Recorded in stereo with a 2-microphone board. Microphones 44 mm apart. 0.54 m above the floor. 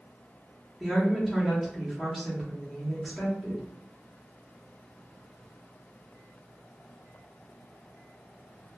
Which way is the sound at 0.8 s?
5° right (ahead or behind).